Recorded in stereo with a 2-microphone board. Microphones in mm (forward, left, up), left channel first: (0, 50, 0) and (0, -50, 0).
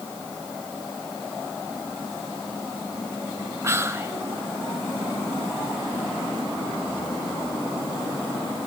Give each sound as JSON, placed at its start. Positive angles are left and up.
{"t": 3.6, "sound": "whispering", "side_deg": -30, "distance_m": 1.2}